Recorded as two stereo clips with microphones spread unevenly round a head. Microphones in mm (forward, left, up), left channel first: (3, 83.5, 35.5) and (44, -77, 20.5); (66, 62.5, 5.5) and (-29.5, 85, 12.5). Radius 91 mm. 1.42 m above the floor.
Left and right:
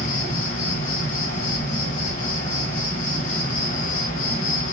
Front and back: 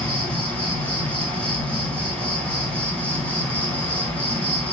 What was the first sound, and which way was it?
An insect, 65° left.